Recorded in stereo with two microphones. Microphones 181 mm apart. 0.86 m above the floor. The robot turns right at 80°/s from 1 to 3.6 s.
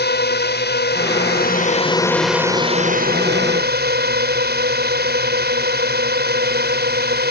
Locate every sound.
0.0 s a drone: 80° left; by 7.3 s 75° right